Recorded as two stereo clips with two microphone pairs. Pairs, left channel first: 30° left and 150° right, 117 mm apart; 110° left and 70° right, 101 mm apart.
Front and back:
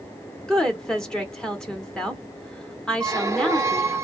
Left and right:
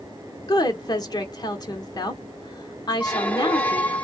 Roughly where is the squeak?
Behind.